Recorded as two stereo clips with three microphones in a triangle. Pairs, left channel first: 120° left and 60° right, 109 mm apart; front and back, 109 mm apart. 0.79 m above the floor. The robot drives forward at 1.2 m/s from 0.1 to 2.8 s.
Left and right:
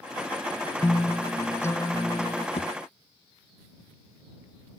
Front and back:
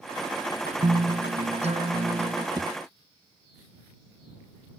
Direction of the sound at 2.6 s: 135° left.